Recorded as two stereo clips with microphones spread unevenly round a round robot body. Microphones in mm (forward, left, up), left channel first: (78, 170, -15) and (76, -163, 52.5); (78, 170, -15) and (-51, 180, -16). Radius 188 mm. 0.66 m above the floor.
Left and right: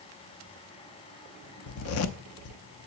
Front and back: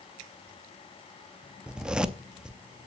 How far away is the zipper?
About 0.6 m.